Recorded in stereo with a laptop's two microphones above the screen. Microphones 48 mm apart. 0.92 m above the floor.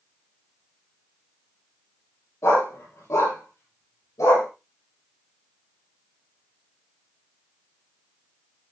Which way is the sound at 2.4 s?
80° left.